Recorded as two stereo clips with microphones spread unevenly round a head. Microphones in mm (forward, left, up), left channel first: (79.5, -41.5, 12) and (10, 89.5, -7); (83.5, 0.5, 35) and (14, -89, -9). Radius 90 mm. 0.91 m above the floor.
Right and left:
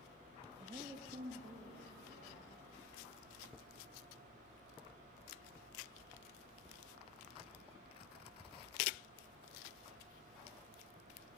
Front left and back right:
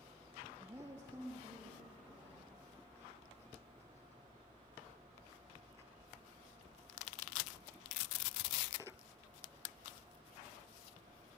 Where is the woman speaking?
170° right, 0.7 m; by 2.5 s 150° left, 2.5 m.